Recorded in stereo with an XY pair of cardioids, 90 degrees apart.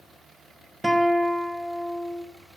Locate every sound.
0.8 s a guitar: straight ahead, 1.4 m